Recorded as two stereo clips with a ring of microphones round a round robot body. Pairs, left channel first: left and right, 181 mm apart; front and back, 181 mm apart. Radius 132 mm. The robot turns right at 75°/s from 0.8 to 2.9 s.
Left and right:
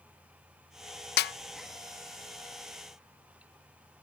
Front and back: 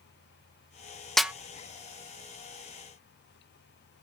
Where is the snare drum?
90° left, 0.5 m; by 1.3 s 100° left, 0.5 m.